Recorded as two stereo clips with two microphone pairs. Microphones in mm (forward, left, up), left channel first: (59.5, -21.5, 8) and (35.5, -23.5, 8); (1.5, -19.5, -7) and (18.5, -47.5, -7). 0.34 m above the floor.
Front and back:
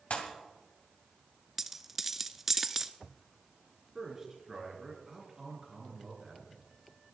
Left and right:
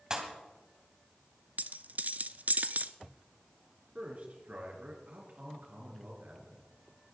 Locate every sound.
0.1 s a pop: 5° left, 2.5 m
1.6 s a dropped coin: 90° right, 0.7 m
4.0 s a man speaking: 100° right, 4.5 m